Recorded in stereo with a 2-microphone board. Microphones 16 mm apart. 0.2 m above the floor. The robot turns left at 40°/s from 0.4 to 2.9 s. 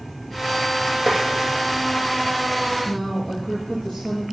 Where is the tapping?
30° left (ahead or behind), 6.5 m; by 1.2 s 35° left (ahead or behind), 6.5 m.